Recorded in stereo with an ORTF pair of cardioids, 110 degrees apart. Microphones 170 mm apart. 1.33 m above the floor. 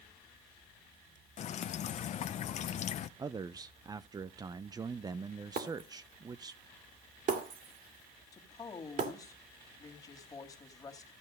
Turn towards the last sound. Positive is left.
turn(degrees=20)